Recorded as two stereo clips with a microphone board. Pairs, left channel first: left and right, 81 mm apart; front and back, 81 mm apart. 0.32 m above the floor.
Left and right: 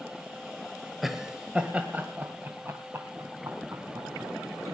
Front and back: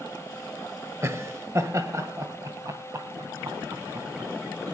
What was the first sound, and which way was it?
Laughter, 175° right.